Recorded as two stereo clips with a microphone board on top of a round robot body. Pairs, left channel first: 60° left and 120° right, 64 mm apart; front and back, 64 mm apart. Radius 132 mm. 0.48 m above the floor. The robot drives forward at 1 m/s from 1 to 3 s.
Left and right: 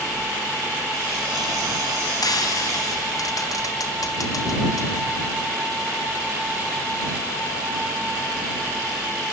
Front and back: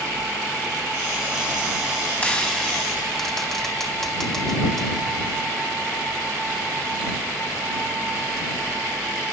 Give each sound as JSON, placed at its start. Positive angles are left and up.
{"t": 2.2, "sound": "frying", "azimuth_deg": 70, "distance_m": 3.5}